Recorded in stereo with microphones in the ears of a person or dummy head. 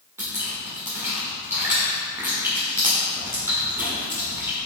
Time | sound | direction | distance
0.2 | dripping | 10° right (ahead or behind) | 1.5 m